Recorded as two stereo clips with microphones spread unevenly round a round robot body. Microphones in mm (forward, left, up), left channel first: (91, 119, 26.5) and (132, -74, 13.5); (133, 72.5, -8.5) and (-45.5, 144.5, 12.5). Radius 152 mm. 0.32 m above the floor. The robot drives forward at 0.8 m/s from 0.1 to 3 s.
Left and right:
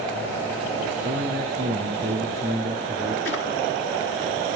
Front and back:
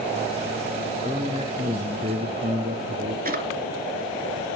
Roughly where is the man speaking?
Behind right.